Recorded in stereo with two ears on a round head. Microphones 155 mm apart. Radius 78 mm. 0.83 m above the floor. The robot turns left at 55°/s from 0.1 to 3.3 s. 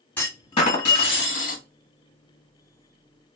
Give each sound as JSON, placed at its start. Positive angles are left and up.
{"t": 0.2, "sound": "a clunk", "azimuth_deg": 170, "distance_m": 1.5}